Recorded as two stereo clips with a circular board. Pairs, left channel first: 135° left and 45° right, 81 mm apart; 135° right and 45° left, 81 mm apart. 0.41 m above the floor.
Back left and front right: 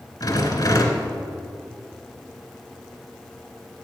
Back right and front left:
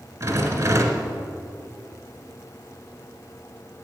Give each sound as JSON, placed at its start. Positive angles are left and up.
{"t": 0.2, "sound": "a rattle", "azimuth_deg": 100, "distance_m": 1.5}